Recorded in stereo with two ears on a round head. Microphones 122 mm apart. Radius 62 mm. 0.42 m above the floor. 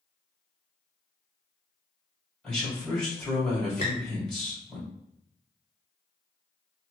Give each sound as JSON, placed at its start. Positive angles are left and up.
{"t": 2.4, "sound": "a man speaking", "side_deg": 5, "distance_m": 1.8}
{"t": 3.8, "sound": "a squeak", "side_deg": 50, "distance_m": 1.3}